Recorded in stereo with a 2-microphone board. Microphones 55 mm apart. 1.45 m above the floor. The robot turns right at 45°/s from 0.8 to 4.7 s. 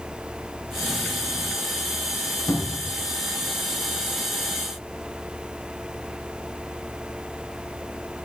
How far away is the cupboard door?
About 2 m.